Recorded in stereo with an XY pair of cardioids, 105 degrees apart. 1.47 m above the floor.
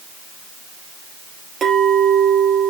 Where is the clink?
55° right, 2.5 m.